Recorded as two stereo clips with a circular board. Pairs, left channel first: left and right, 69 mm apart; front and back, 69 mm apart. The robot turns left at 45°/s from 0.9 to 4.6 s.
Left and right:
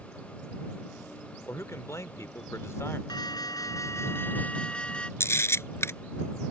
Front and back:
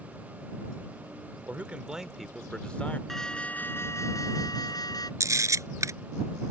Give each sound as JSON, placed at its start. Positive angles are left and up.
{"t": 1.5, "sound": "a man speaking", "azimuth_deg": 125}
{"t": 3.1, "sound": "an alarm", "azimuth_deg": 85}
{"t": 5.2, "sound": "a camera shutter", "azimuth_deg": 140}